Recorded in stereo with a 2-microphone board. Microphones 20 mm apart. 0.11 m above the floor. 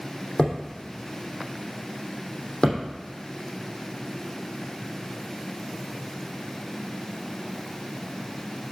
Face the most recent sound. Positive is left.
turn(degrees=45)  # may be behind; listen again after turning